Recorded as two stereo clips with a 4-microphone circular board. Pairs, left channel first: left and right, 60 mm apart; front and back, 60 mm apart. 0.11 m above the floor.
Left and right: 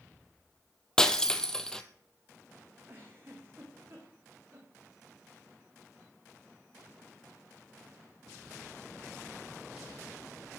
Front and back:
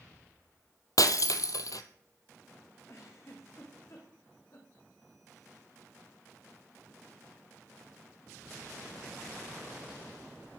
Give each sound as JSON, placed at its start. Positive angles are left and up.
{"t": 1.0, "sound": "breaking glass", "azimuth_deg": 10, "distance_m": 1.3}
{"t": 2.9, "sound": "a giggle", "azimuth_deg": -40, "distance_m": 5.0}